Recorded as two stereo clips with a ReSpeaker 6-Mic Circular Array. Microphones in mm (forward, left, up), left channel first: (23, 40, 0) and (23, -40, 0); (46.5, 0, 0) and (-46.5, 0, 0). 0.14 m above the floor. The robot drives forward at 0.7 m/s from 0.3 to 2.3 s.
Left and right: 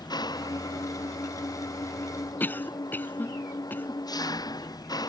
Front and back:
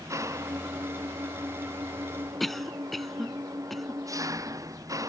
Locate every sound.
0.0 s an engine running: 125° left
2.4 s a cough: 85° left